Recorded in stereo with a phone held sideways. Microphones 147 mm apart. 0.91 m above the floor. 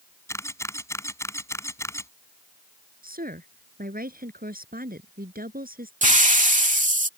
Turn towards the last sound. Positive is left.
turn(degrees=-60)  # may be behind; listen again after turning